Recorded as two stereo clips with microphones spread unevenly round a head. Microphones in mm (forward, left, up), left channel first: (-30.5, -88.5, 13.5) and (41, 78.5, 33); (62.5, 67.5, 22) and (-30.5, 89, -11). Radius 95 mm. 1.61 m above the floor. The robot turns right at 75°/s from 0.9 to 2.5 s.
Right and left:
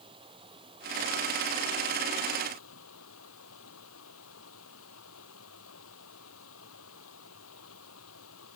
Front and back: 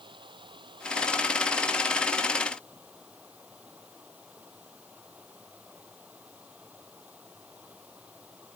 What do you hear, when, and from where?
0.0 s running water: 130° left; by 8.6 s 110° right